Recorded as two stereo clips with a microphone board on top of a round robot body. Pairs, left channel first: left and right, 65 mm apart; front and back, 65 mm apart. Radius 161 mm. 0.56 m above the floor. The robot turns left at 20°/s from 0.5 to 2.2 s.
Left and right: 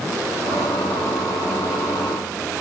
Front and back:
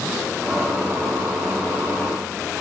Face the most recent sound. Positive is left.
No sound to turn to.